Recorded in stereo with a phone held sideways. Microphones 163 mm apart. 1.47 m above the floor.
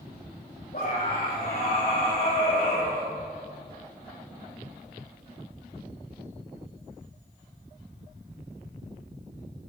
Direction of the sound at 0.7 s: 55° left (ahead or behind).